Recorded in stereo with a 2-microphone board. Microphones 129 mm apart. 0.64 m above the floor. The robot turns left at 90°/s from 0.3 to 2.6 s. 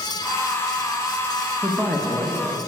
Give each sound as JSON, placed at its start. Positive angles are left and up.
{"t": 1.6, "sound": "a man speaking", "side_deg": -5, "distance_m": 0.6}